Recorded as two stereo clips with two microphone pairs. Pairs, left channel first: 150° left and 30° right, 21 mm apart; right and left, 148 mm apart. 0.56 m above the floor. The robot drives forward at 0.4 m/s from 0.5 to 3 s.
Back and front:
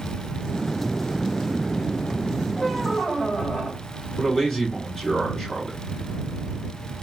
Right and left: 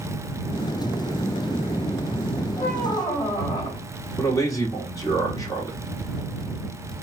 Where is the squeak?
155° right, 1.9 m.